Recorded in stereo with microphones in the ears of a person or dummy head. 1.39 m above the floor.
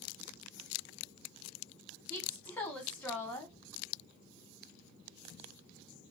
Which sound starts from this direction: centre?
A woman speaking, at 2.1 s.